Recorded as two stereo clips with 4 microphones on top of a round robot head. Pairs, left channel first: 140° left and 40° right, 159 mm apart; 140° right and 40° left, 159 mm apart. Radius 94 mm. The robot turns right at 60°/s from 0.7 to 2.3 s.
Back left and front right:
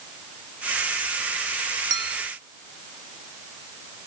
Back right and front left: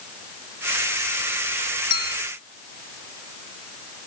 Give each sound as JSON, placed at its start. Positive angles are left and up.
{"t": 1.9, "sound": "a clink", "azimuth_deg": -95, "distance_m": 0.7}